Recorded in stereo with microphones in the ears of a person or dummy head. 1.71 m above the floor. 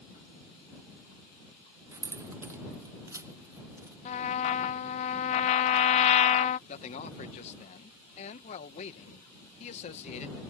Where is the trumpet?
35° left (ahead or behind).